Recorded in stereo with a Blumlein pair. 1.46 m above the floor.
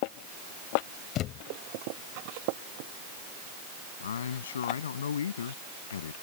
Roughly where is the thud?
Ahead left.